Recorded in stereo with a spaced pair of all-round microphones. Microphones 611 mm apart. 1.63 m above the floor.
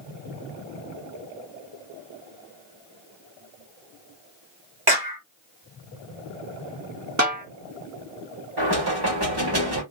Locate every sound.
4.9 s a clap: 35° right (ahead or behind), 1.3 m
7.2 s a snare drum: 25° right (ahead or behind), 1.1 m
8.6 s knocking: 40° right (ahead or behind), 1.5 m